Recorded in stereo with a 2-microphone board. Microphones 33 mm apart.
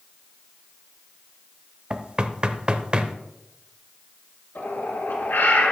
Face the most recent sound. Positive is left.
turn(degrees=75)  # may be behind; listen again after turning